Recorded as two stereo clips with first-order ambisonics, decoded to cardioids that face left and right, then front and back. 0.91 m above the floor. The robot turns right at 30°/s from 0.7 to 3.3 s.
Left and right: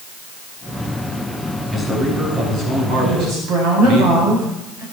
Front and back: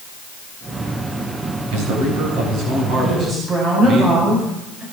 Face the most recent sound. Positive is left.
turn(degrees=-120)